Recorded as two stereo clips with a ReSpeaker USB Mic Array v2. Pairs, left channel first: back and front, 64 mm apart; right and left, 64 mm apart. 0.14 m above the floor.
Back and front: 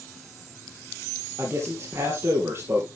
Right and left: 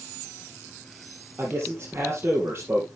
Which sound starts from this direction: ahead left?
A man speaking, at 1.4 s.